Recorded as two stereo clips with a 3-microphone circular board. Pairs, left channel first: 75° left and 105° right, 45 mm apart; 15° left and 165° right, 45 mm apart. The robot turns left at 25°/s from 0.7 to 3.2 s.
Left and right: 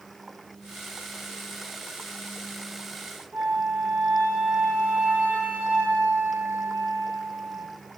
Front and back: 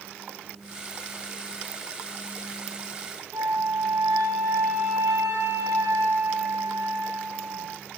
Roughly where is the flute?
Behind right.